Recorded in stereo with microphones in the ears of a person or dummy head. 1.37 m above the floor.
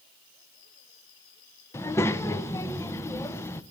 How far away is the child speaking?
About 0.7 m.